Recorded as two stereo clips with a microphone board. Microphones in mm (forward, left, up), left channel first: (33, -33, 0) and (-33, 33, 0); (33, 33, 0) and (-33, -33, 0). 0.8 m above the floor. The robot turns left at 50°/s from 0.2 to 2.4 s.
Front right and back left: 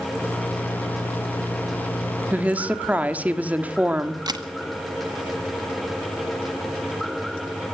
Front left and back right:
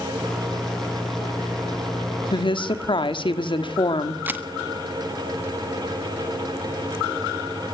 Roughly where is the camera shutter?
Behind.